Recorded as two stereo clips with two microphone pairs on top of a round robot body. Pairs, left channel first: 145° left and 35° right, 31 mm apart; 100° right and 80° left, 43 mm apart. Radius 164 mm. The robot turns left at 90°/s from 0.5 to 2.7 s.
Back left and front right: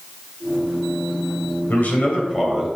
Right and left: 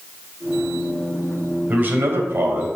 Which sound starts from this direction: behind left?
A man speaking, at 1.7 s.